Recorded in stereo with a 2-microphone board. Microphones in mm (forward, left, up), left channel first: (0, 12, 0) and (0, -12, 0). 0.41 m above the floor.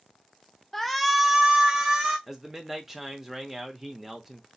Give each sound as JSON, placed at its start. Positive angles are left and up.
{"t": 0.7, "sound": "a shout", "side_deg": 15, "distance_m": 0.8}
{"t": 2.3, "sound": "a man speaking", "side_deg": -15, "distance_m": 0.8}